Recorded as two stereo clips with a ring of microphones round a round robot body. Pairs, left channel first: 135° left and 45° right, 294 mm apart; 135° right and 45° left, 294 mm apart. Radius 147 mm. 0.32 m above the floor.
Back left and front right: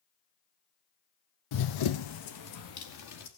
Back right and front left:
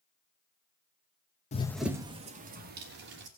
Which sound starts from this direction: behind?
Running footsteps, at 1.5 s.